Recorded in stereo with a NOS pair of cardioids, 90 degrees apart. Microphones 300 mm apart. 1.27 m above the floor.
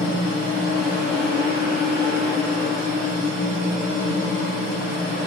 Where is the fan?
35° left, 0.9 m.